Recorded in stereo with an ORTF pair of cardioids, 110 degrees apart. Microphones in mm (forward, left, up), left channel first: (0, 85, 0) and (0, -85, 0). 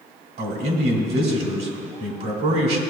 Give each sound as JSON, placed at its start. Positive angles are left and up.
{"t": 0.4, "sound": "a man speaking", "azimuth_deg": -65, "distance_m": 2.0}